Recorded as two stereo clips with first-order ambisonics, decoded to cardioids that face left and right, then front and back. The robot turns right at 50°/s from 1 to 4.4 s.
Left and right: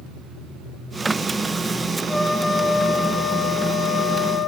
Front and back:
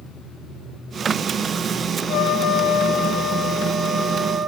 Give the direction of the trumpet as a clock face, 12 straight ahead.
12 o'clock.